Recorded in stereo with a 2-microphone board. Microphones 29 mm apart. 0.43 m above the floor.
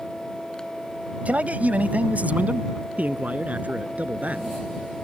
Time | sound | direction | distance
1.2 | a man speaking | 60° right (ahead or behind) | ?